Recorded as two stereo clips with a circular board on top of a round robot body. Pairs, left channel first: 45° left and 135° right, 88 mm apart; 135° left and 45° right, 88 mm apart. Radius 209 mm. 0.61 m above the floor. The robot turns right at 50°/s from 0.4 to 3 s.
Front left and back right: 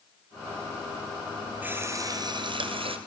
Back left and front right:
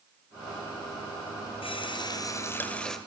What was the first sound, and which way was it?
A running tap, 155° left.